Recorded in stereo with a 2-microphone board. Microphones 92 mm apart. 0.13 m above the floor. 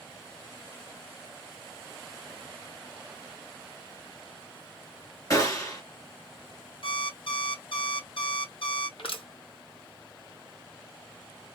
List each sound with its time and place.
5.3 s a gunshot: 35° left (ahead or behind), 1.5 m
6.8 s an alarm clock: 65° left (ahead or behind), 1.9 m
9.0 s crushing: 70° left (ahead or behind), 2.0 m